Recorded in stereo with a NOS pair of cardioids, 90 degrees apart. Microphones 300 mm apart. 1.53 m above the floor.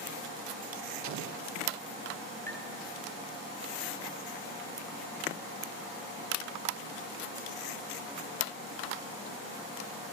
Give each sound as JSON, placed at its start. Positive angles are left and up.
{"t": 1.0, "sound": "an explosion", "azimuth_deg": -65, "distance_m": 1.1}
{"t": 2.5, "sound": "tapping", "azimuth_deg": 10, "distance_m": 8.5}